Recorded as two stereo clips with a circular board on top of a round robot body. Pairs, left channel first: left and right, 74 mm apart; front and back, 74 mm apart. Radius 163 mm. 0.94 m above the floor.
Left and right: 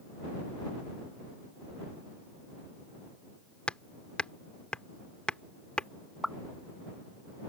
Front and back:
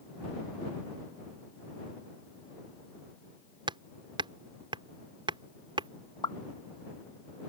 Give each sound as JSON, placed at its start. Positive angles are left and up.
{"t": 3.7, "sound": "hammering", "azimuth_deg": 165}
{"t": 6.2, "sound": "a pop", "azimuth_deg": -5}